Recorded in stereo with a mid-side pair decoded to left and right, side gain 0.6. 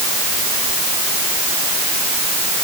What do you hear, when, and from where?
Only background noise.